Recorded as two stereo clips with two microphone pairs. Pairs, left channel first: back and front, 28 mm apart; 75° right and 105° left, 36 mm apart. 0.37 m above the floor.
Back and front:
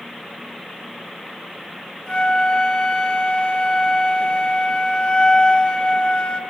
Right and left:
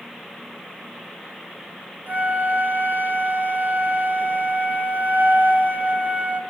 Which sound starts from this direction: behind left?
A flute, at 2.1 s.